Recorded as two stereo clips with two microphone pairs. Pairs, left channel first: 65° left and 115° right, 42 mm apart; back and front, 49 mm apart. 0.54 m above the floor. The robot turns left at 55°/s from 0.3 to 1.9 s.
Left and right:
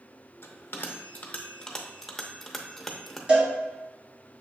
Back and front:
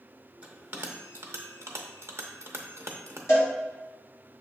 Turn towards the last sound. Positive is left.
turn(degrees=-175)